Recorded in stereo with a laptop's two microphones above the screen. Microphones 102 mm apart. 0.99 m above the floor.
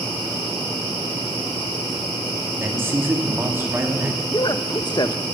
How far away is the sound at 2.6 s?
About 2 m.